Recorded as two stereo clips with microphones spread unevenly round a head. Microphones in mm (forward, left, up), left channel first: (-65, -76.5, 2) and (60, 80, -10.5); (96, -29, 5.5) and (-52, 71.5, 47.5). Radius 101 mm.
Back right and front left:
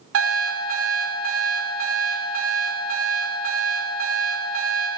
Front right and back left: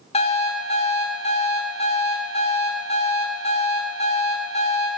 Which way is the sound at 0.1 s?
25° left.